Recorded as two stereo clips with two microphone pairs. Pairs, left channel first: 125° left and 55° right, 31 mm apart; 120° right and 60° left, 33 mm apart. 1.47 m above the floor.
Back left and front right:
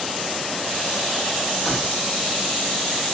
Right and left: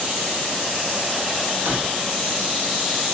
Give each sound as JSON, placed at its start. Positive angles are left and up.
{"t": 1.6, "sound": "keys jangling", "azimuth_deg": 50, "distance_m": 7.5}